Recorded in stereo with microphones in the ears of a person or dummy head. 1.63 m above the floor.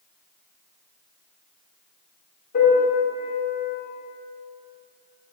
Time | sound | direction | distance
2.5 | a piano | 60° left (ahead or behind) | 2 m